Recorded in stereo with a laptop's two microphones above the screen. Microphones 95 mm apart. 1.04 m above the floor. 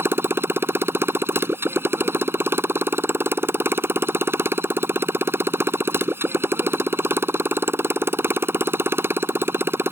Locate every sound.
0.0 s a motorcycle: 25° right (ahead or behind)